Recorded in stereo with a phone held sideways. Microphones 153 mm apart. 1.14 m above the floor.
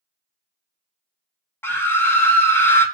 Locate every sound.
1.6 s a scream: 15° left (ahead or behind), 0.8 m